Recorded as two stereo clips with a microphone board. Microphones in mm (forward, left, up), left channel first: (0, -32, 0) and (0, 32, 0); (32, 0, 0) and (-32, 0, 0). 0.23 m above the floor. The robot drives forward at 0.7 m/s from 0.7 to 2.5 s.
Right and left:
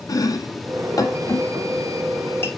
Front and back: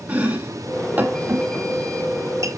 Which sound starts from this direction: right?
Chopping, at 0.1 s.